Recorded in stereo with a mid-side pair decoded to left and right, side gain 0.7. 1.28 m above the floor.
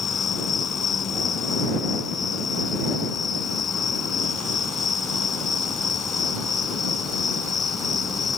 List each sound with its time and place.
0.0 s an insect: 25° left